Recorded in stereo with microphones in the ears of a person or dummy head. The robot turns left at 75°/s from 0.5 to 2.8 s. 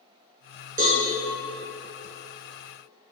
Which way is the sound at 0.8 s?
40° right (ahead or behind).